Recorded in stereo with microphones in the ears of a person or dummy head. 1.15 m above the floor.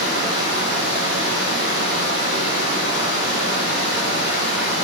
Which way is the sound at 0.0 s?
55° left (ahead or behind).